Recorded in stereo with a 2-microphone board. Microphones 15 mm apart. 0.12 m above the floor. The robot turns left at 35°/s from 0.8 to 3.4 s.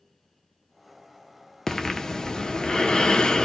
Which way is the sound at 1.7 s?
155° left.